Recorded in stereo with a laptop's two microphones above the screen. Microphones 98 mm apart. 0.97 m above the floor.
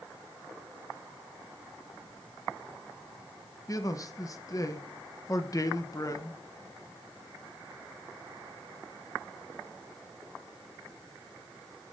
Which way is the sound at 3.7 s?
35° left (ahead or behind).